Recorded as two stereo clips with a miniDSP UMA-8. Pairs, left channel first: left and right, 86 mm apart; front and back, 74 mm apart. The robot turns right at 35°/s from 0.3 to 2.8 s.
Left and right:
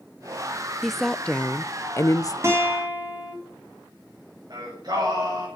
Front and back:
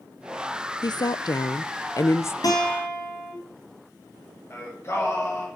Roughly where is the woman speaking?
Ahead.